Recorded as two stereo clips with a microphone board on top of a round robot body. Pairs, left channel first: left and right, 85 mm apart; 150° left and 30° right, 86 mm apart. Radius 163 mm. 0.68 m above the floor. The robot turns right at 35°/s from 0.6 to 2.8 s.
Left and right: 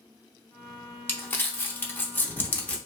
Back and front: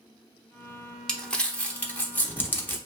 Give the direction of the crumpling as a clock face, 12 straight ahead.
9 o'clock.